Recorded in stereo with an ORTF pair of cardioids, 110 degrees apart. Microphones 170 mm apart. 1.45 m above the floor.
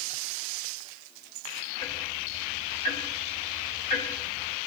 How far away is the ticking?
About 6.5 m.